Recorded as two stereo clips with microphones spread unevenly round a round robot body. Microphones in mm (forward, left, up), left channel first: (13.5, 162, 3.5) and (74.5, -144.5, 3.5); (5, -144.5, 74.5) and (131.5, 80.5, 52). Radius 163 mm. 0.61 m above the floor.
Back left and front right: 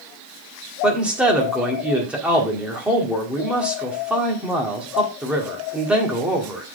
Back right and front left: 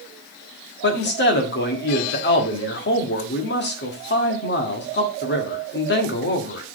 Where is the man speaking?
165° right, 1.5 m.